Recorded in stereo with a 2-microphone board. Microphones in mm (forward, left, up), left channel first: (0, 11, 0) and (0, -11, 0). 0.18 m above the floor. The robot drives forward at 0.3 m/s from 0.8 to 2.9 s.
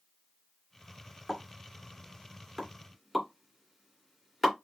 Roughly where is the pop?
Centre.